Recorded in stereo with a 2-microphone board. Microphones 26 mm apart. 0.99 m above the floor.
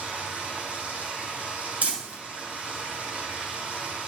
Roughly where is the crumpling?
Right.